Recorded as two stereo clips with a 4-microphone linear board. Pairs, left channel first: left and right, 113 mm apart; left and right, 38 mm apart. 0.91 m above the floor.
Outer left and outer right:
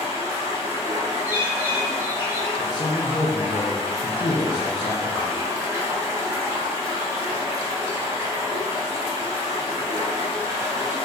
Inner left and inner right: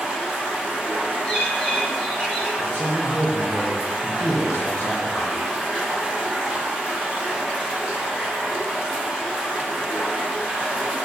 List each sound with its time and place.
0.0 s running water: 30° right (ahead or behind), 0.9 m
1.2 s a bird: 15° right (ahead or behind), 1.9 m
2.6 s a man speaking: 50° left (ahead or behind), 0.6 m